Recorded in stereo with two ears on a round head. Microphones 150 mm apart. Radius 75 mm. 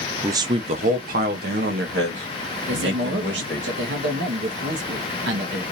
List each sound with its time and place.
0.2 s a man speaking: 15° right (ahead or behind), 0.5 m; by 3.7 s 80° right, 2.5 m
2.7 s a man speaking: 70° right (ahead or behind), 1.2 m